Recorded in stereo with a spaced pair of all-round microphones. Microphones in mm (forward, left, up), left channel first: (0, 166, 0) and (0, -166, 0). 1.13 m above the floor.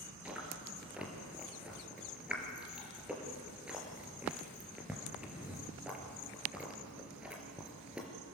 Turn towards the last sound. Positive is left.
turn(degrees=-5)  # may be behind; listen again after turning